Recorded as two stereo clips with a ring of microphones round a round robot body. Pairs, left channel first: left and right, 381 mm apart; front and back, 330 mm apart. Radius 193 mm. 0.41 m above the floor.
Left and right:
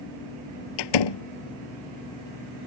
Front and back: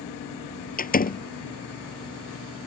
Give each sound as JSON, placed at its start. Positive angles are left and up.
{"t": 0.8, "sound": "a door slam", "azimuth_deg": 65}